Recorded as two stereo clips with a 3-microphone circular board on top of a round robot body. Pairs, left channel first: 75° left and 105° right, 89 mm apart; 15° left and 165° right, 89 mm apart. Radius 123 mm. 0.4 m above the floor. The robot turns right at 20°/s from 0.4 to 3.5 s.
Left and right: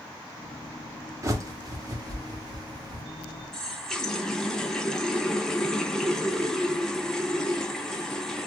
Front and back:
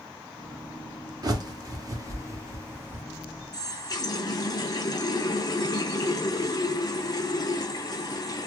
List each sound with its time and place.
1.2 s a bird: 145° right, 1.2 m; by 3.0 s 110° right, 1.2 m
3.5 s a running tap: 10° right, 0.8 m